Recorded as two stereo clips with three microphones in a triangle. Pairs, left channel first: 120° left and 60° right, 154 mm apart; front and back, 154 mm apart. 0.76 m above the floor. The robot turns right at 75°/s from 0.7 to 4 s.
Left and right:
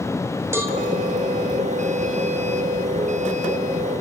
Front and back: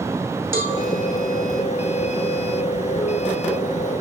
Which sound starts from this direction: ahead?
A cowbell, at 0.5 s.